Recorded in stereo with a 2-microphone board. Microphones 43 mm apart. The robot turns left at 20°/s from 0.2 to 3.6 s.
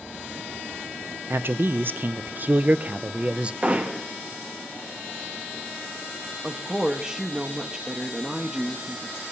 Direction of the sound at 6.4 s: 10° right (ahead or behind).